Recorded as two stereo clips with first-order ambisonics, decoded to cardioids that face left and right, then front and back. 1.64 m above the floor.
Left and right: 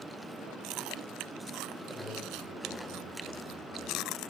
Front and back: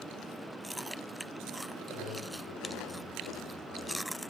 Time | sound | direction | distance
1.9 | a man speaking | 15° right | 6 m